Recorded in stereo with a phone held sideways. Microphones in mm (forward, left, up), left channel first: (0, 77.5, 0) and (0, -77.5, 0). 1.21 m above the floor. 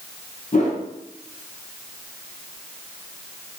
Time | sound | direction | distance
0.5 | a whoosh | 50° left (ahead or behind) | 0.8 m